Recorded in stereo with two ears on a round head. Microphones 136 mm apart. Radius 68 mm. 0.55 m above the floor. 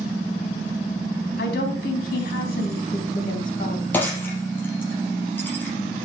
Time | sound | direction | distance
1.4 | a woman speaking | 75° left (ahead or behind) | 4 m
3.9 | breaking glass | 15° left (ahead or behind) | 4.5 m